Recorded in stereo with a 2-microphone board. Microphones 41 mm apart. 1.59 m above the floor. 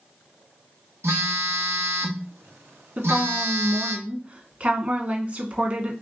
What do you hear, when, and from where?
1.0 s a phone buzzing: 80° right, 0.9 m
3.0 s a woman speaking: 40° right (ahead or behind), 1.2 m